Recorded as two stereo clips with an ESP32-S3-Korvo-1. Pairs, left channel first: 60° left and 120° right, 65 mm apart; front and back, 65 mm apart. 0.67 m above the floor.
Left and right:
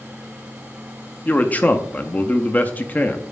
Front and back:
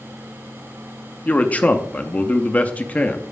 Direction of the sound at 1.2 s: 35° left.